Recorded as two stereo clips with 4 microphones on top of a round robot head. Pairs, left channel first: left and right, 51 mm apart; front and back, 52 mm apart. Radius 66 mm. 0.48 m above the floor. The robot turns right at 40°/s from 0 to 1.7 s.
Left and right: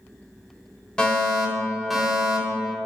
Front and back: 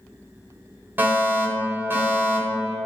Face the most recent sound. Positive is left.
turn(degrees=-175)